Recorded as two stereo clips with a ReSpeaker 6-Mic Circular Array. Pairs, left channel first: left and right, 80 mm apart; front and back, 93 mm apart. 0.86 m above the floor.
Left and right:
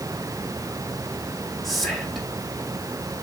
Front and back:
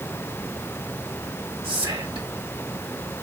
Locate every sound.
1.6 s whispering: straight behind, 2 m